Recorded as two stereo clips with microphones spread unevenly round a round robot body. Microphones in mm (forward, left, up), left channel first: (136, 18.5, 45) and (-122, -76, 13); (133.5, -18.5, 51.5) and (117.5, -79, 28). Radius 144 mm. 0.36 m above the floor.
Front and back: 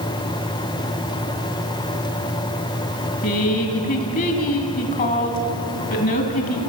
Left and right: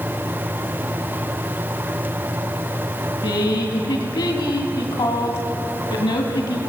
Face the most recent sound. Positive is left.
turn(degrees=85)